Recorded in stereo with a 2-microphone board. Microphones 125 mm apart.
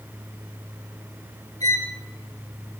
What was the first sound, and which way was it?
A violin, 65° right (ahead or behind).